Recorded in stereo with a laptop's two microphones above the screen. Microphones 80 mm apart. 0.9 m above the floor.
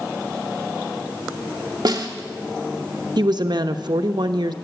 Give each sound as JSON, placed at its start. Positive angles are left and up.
{"t": 1.9, "sound": "a snare drum", "side_deg": -55, "distance_m": 1.1}
{"t": 3.2, "sound": "a woman speaking", "side_deg": -65, "distance_m": 0.7}